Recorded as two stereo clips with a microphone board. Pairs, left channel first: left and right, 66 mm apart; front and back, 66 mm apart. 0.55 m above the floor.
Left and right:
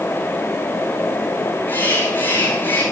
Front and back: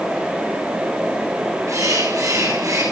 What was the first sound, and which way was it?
A bird, 150° left.